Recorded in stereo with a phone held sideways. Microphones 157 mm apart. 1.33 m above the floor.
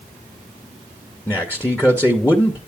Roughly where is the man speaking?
Centre.